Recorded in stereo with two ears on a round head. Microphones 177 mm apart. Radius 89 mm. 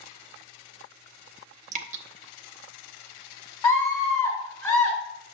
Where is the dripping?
40° right (ahead or behind), 0.7 m.